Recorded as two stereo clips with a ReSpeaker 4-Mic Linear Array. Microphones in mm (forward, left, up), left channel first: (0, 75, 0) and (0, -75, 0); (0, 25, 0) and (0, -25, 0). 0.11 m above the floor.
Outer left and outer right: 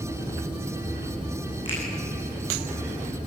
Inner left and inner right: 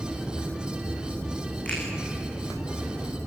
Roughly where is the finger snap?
Left.